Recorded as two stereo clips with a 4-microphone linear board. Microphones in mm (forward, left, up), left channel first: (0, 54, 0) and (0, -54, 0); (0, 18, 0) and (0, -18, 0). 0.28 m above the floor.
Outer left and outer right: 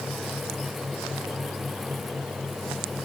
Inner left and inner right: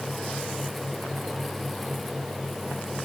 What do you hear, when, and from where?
Only background noise.